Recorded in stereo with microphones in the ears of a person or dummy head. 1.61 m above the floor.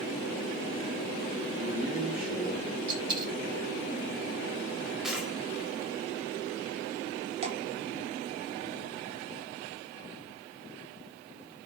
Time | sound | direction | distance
1.5 | a man speaking | 5° right (ahead or behind) | 3.5 m
2.9 | a dropped coin | 35° right (ahead or behind) | 4 m
5.0 | a dropped coin | centre (ahead or behind) | 2.0 m
7.4 | dripping | 40° right (ahead or behind) | 1.9 m